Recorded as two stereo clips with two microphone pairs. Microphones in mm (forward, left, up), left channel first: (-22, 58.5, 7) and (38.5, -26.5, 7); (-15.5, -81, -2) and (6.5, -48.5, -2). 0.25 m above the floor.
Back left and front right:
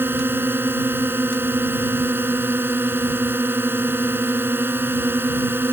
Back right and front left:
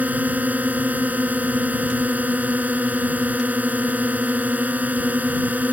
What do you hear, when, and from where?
0.0 s a drone: 15° left